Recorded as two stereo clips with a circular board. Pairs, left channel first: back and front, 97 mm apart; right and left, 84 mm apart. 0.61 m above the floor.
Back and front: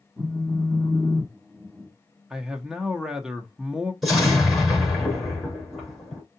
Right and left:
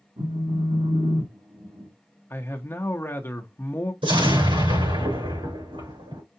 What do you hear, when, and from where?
0.2 s a phone buzzing: 85° left, 1.9 m
2.3 s a man speaking: 75° right, 0.8 m
4.0 s an explosion: 90° left, 4 m